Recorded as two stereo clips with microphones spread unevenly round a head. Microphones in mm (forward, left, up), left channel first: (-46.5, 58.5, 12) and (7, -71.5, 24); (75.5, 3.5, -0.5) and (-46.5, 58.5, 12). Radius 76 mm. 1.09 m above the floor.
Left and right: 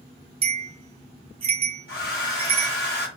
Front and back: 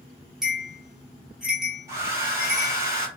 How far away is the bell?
About 0.8 m.